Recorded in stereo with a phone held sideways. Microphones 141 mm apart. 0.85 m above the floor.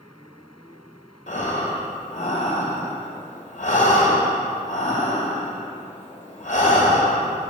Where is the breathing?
60° left (ahead or behind), 1.9 m.